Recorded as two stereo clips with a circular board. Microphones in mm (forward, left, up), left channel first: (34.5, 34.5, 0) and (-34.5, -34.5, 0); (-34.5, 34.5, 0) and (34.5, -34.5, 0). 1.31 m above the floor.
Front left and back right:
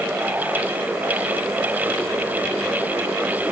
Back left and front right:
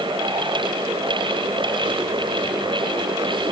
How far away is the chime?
I don't hear a chime.